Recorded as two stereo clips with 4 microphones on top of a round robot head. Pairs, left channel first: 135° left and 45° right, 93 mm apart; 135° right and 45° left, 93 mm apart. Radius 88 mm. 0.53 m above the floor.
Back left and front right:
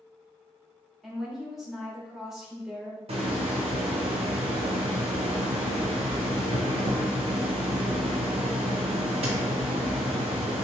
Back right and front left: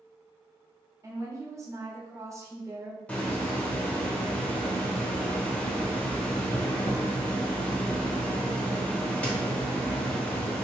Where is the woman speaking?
35° left, 1.1 m.